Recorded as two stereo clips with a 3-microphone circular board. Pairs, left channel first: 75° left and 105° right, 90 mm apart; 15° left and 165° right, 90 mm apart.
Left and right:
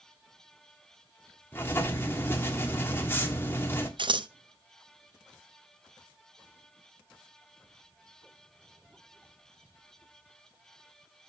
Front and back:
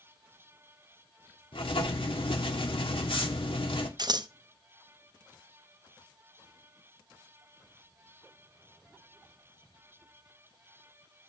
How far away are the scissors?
About 0.6 m.